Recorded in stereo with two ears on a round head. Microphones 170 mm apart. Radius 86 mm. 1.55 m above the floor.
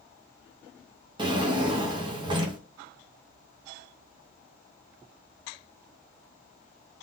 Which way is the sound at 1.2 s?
25° right (ahead or behind).